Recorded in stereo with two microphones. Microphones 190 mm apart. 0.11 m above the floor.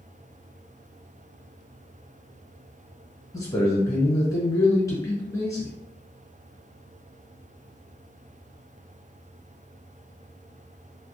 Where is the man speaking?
15° left (ahead or behind), 1.1 m.